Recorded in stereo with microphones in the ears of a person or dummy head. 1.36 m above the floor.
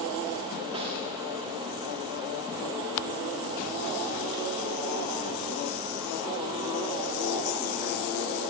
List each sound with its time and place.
0.7 s a snare drum: 25° right (ahead or behind), 2.5 m